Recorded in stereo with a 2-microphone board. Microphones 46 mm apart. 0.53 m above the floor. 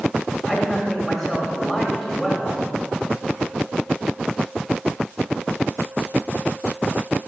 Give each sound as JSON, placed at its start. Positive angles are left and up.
{"t": 0.5, "sound": "a man speaking", "side_deg": -5, "distance_m": 2.0}